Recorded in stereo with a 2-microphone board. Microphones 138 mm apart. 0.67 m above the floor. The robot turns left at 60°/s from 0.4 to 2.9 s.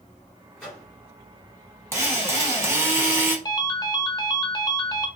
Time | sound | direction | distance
0.6 | a microwave | centre (ahead or behind) | 1.7 m
1.9 | a drill | 20° right (ahead or behind) | 1.0 m
3.5 | a ringtone | 30° left (ahead or behind) | 0.5 m